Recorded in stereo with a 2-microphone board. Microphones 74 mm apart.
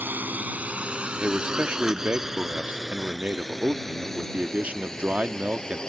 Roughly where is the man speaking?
Centre.